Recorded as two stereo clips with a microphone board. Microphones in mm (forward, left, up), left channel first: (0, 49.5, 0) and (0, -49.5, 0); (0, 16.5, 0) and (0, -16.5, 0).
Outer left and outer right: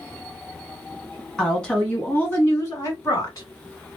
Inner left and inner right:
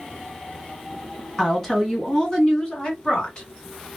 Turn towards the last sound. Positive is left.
turn(degrees=40)  # may be behind; listen again after turning